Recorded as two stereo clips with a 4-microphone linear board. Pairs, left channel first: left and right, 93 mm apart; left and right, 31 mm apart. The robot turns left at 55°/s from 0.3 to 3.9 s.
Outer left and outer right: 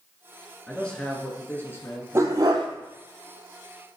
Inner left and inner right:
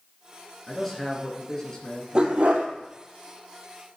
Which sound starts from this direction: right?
A dog barking, at 2.1 s.